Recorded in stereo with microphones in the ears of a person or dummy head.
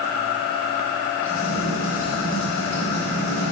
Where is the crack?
10° left (ahead or behind), 1.9 m.